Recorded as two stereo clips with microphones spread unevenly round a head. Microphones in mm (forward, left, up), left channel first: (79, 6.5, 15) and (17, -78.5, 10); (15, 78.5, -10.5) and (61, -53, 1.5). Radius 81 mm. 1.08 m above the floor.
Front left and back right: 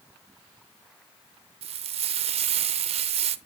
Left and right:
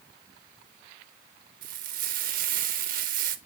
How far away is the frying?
About 0.6 m.